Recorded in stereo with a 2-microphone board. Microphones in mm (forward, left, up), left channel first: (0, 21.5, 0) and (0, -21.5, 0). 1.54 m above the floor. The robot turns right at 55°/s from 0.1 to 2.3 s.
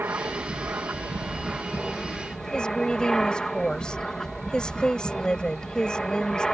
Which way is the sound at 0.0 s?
110° right.